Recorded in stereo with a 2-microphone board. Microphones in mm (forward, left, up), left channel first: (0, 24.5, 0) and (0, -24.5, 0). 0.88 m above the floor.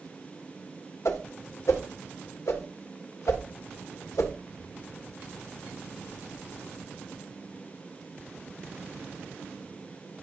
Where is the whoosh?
75° left (ahead or behind), 1.2 m.